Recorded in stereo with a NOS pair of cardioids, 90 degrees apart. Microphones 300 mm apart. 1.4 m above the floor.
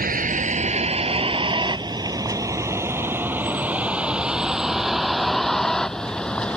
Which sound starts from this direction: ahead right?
A vehicle, at 0.0 s.